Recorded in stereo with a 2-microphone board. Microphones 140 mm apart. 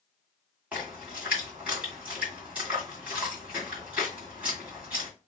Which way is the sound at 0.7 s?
10° right (ahead or behind).